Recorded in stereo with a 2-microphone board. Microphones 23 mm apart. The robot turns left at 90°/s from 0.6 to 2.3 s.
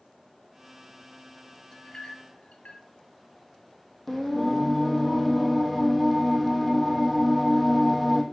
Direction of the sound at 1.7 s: 20° left (ahead or behind).